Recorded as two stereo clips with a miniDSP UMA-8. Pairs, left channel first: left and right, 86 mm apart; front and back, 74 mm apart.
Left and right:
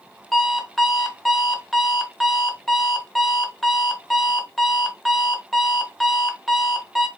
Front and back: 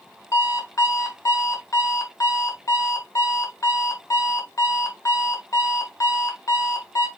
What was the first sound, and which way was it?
An alarm clock, straight ahead.